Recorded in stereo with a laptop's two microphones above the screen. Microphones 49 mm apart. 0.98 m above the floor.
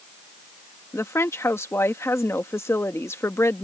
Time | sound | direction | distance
0.9 | a woman speaking | 65° left (ahead or behind) | ?